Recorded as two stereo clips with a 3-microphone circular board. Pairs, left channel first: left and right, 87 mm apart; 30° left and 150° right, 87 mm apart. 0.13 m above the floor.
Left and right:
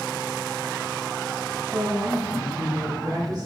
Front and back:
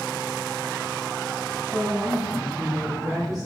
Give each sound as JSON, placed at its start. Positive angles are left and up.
{"t": 1.7, "sound": "a woman speaking", "azimuth_deg": -75, "distance_m": 1.6}